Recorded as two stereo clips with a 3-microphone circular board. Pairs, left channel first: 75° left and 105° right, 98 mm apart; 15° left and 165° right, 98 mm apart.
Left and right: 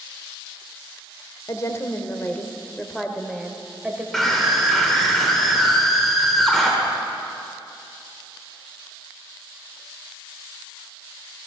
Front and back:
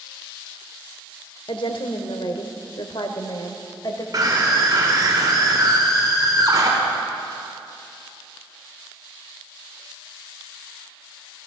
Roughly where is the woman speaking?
Ahead left.